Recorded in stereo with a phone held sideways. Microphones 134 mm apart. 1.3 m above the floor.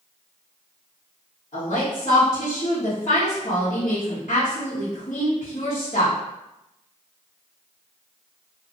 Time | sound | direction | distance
1.5 | a woman speaking | 60° left (ahead or behind) | 1.3 m